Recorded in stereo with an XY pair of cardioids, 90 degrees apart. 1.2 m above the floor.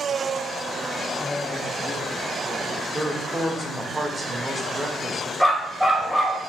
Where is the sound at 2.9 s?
15° right, 1.9 m.